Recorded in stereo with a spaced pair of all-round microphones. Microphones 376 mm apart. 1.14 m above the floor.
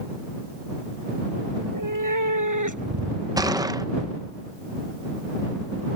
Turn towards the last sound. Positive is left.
turn(degrees=-10)  # may be behind; listen again after turning